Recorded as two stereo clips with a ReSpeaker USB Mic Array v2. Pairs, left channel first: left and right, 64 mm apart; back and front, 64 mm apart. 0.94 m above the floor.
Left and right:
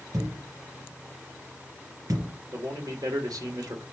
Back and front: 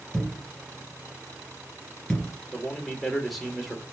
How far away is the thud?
About 2.5 m.